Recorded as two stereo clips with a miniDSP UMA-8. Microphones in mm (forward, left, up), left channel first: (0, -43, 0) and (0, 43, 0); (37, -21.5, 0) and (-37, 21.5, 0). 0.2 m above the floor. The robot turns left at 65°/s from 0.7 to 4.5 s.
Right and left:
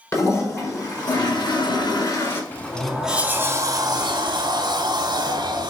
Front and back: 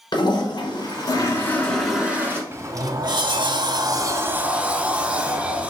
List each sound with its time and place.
0.1 s a toilet flushing: 45° right, 1.5 m; by 2.4 s 155° right, 1.5 m
2.5 s a sliding door: 155° right, 0.7 m; by 5.7 s 75° left, 0.7 m